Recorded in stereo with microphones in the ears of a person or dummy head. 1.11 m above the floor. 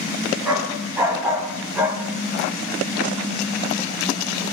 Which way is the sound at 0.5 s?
10° right (ahead or behind).